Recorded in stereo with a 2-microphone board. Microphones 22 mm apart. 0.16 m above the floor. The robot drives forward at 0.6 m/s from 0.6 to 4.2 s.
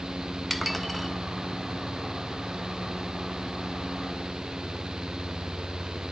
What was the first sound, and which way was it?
Dishes clattering, centre (ahead or behind).